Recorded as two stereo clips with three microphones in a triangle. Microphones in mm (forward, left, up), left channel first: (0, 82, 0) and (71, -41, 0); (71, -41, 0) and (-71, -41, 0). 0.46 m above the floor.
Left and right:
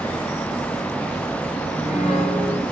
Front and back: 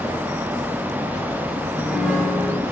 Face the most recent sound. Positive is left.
turn(degrees=80)